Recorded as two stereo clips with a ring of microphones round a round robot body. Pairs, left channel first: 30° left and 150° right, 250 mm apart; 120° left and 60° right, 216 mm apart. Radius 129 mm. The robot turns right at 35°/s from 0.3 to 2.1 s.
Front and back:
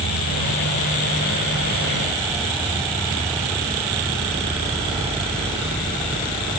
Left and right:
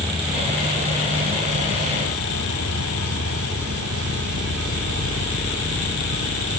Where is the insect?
135° right; by 6.6 s 70° right.